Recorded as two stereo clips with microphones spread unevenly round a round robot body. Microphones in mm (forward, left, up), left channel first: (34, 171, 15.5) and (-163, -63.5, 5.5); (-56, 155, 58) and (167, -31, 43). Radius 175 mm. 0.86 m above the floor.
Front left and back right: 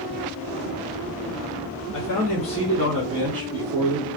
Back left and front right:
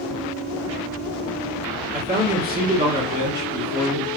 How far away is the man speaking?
About 1.0 m.